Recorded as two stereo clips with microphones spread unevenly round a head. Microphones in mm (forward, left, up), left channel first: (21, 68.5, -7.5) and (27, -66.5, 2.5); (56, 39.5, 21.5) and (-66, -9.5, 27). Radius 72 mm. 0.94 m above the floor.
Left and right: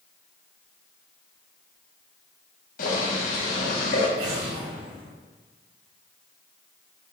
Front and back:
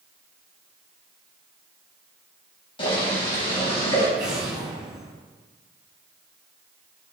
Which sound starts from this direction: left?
Boiling, at 2.8 s.